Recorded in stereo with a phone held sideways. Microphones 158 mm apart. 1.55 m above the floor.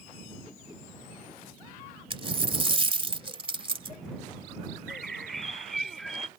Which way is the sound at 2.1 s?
35° right (ahead or behind).